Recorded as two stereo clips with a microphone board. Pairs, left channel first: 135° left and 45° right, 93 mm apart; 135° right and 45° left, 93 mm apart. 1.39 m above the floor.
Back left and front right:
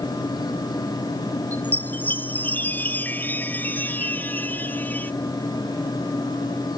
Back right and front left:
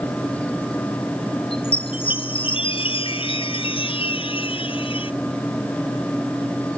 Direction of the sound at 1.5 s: 155° right.